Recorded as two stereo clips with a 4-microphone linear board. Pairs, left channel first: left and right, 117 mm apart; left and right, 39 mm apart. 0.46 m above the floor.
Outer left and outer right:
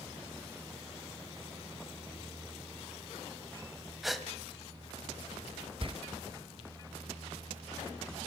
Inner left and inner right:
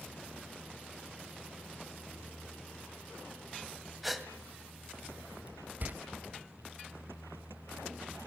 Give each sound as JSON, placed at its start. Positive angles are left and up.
{"t": 4.0, "sound": "a gasp", "side_deg": 0, "distance_m": 1.9}
{"t": 5.8, "sound": "a door slam", "side_deg": -50, "distance_m": 1.3}